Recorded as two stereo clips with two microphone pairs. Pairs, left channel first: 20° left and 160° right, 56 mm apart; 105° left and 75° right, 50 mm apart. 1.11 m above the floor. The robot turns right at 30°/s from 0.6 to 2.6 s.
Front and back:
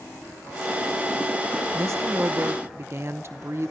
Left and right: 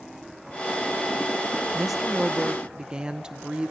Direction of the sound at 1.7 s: 165° right.